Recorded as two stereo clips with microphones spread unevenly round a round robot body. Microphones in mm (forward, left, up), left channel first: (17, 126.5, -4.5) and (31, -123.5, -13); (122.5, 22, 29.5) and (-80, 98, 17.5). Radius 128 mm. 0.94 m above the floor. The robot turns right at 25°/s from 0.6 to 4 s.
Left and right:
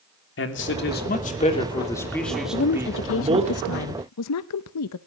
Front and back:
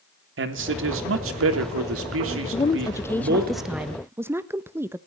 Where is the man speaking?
140° left, 3 m; by 3.5 s 150° right, 3 m.